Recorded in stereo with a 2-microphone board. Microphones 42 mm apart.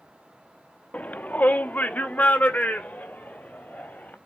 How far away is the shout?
About 0.6 m.